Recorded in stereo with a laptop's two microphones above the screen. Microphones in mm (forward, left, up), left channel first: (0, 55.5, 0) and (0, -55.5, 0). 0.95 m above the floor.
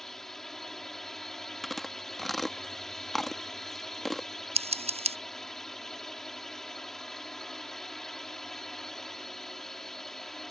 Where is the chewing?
Centre (ahead or behind).